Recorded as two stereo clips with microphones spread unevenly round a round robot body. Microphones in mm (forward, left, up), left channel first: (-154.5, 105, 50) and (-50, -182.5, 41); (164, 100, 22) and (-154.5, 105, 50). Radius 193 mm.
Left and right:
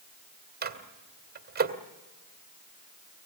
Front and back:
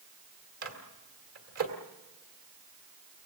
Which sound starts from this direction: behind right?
A microwave, at 0.6 s.